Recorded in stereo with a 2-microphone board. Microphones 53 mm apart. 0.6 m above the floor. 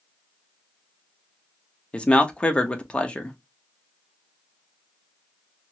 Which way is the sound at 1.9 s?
20° left (ahead or behind).